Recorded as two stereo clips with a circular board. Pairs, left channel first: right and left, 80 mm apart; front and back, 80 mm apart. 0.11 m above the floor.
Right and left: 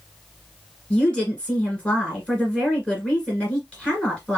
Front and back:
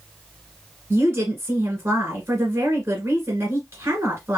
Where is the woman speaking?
155° right, 1.8 m.